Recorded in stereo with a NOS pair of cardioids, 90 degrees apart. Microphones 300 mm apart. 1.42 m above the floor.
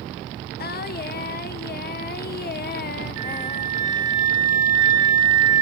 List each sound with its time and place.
0.6 s singing: 35° left, 0.7 m
3.2 s a flute: 60° right, 0.7 m